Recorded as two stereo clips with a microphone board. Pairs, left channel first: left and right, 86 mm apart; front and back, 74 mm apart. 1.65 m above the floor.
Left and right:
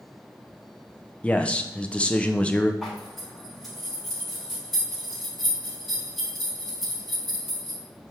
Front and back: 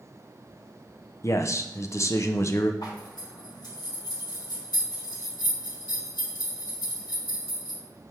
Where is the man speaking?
20° left, 0.7 m.